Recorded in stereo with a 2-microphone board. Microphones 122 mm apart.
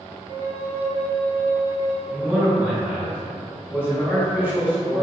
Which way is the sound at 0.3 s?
35° right (ahead or behind).